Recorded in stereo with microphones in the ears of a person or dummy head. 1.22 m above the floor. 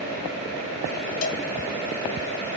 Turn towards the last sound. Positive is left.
turn(degrees=45)  # may be behind; listen again after turning